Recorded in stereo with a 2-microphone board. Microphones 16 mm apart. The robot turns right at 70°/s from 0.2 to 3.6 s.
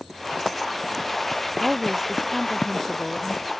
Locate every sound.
1.6 s a woman speaking: 55° right; by 3.5 s 80° left